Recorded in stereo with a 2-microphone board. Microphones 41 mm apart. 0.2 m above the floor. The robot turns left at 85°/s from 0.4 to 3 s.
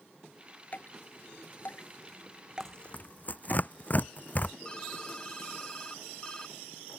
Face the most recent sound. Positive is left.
turn(degrees=20)  # may be behind; listen again after turning